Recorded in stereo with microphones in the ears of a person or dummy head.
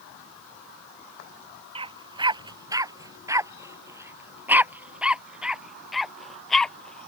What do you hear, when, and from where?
1.8 s a dog barking: 25° right (ahead or behind); by 7.1 s 10° left (ahead or behind)